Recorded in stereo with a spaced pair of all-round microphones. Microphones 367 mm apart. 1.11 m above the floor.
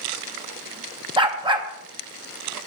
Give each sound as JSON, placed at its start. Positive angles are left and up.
{"t": 1.2, "sound": "a dog barking", "side_deg": -15, "distance_m": 0.5}